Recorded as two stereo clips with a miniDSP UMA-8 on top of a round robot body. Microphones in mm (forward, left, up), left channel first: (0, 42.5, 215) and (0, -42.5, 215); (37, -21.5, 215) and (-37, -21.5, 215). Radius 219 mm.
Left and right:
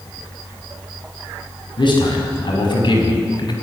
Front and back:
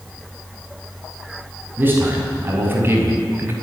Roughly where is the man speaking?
Behind left.